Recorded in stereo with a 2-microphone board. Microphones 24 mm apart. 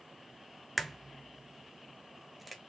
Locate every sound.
0.8 s a crack: 5° right (ahead or behind), 0.5 m